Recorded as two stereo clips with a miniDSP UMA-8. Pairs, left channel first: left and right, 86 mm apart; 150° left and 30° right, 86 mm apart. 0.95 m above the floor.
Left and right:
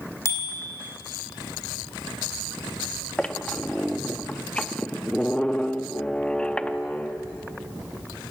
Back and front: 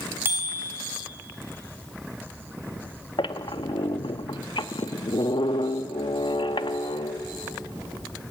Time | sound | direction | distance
0.2 | a bicycle bell | 35° left | 3.5 m
3.2 | a squeak | 170° left | 0.7 m